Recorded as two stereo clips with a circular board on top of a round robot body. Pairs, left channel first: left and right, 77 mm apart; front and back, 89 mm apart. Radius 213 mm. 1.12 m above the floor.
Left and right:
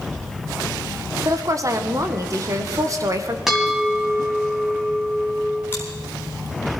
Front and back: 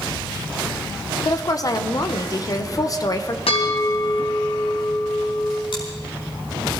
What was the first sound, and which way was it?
A woman speaking, 45° right.